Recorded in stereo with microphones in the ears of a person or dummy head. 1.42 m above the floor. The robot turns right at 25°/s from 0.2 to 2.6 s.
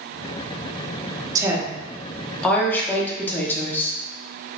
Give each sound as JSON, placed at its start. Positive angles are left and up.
{"t": 1.4, "sound": "a woman speaking", "azimuth_deg": -20, "distance_m": 0.8}